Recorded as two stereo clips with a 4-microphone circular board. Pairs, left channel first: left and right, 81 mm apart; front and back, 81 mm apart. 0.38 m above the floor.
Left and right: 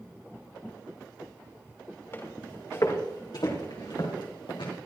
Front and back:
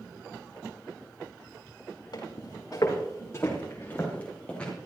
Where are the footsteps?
30° left, 3.5 m; by 4.7 s 75° left, 4.5 m.